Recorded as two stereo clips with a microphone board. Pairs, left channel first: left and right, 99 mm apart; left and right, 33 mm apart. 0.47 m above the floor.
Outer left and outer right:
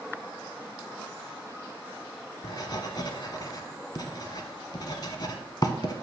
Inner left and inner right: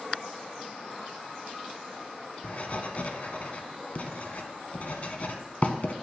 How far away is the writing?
About 0.7 m.